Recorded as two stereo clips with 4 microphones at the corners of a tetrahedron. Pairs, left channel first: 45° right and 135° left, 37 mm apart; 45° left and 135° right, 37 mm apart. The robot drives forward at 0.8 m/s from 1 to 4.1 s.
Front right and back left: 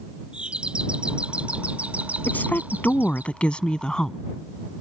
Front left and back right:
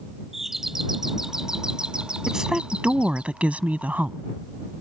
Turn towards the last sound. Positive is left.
turn(degrees=-115)